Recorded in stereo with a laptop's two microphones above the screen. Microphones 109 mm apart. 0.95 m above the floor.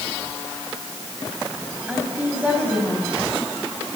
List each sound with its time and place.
1.9 s a woman speaking: 10° right (ahead or behind), 5 m